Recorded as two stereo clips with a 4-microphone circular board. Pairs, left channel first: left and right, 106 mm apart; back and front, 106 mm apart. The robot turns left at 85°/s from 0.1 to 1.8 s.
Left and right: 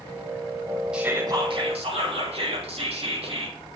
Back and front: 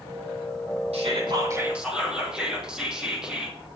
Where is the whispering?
10° right, 4 m; by 3.6 s 80° right, 4 m.